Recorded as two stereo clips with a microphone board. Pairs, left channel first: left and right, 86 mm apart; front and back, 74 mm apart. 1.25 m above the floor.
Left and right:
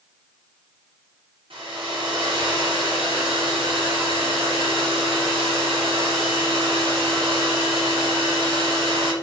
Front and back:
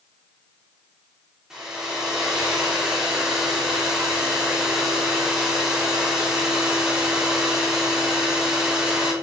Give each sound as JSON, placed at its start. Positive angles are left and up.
{"t": 1.5, "sound": "a hair dryer", "azimuth_deg": -100, "distance_m": 3.0}